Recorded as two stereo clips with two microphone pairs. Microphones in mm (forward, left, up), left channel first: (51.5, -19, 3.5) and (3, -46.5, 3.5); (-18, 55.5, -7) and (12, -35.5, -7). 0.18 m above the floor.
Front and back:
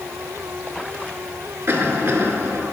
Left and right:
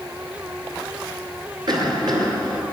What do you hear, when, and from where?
1.7 s a cough: 105° right, 2.5 m